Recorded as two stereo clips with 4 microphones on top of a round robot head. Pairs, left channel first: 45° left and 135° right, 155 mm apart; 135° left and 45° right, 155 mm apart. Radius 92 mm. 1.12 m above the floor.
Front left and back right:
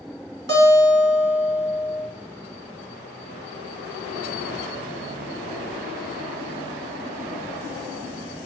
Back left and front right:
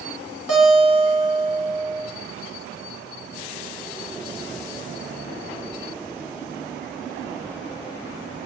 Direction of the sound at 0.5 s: 125° right.